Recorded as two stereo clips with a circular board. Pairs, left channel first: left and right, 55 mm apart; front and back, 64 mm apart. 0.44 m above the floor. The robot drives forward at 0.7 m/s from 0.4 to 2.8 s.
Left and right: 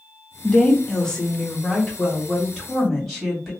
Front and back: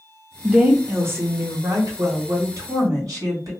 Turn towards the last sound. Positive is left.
turn(degrees=175)